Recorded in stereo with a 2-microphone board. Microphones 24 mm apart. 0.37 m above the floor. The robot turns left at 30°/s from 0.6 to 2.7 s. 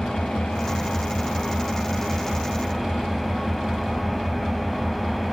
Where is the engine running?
60° left, 0.8 m; by 5.3 s 5° right, 0.8 m.